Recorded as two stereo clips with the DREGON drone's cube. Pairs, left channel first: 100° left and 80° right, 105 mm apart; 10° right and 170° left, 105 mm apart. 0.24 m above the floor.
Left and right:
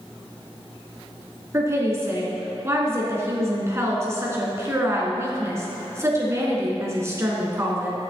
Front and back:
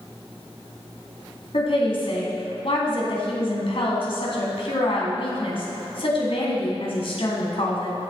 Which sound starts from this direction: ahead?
A woman speaking, at 1.5 s.